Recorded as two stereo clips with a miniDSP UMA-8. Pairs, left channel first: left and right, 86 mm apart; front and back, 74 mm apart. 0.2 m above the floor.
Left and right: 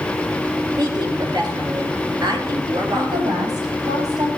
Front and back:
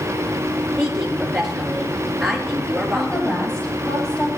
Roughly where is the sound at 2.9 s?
Right.